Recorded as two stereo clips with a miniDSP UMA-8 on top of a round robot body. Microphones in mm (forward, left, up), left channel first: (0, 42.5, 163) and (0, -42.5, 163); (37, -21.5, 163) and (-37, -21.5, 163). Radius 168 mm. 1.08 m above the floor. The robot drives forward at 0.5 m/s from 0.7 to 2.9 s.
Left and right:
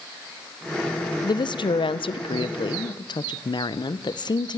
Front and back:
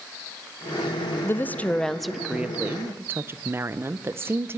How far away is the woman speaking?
About 0.8 m.